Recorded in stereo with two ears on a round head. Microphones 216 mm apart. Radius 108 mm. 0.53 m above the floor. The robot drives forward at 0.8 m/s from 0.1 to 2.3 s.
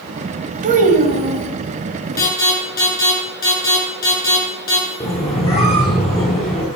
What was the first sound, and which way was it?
A child speaking, 35° right (ahead or behind).